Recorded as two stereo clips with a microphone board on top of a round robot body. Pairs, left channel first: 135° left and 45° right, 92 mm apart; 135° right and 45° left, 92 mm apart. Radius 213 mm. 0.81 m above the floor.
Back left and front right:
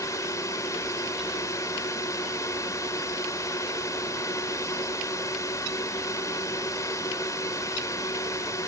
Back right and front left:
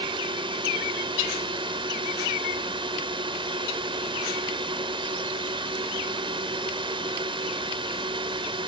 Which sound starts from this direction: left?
A drone, at 0.0 s.